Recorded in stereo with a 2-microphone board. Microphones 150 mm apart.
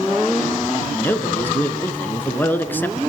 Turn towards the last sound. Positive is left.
turn(degrees=15)  # may be behind; listen again after turning